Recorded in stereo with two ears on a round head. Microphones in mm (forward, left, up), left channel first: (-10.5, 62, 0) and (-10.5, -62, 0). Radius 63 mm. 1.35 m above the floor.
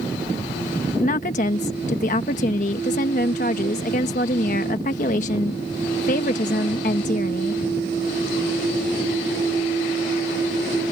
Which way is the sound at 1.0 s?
55° left (ahead or behind).